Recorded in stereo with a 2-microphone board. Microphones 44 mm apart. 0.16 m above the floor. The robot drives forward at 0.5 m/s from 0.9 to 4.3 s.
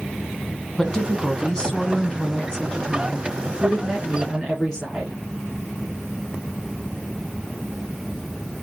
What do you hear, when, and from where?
0.8 s a woman speaking: 15° left (ahead or behind), 1.2 m; by 5.2 s 10° left (ahead or behind), 1.8 m